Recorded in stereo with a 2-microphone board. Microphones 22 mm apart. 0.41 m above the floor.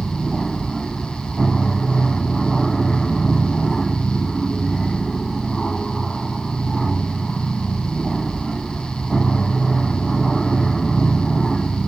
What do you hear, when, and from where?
0.0 s an aircraft: 10° left (ahead or behind)